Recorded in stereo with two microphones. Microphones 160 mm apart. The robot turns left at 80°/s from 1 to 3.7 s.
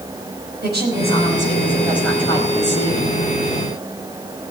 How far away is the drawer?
I don't hear a drawer.